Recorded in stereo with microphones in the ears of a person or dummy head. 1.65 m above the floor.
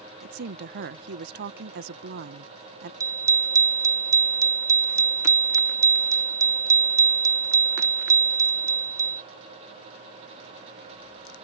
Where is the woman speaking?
55° right (ahead or behind).